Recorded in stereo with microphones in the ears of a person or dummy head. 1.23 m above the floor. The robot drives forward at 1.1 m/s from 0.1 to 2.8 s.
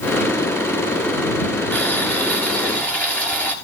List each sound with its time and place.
1.7 s boiling: 10° left (ahead or behind), 4 m